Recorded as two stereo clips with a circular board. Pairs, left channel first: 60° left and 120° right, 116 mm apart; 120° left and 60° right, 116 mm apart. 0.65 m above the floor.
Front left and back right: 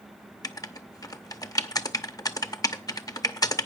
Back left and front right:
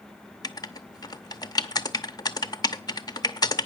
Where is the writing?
95° left, 0.7 m.